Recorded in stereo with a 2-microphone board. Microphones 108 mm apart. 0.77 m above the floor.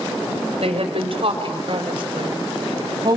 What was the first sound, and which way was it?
A woman speaking, 65° right (ahead or behind).